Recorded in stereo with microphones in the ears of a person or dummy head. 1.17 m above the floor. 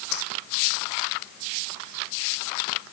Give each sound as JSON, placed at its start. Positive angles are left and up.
{"t": 0.1, "sound": "a dropped coin", "side_deg": 70}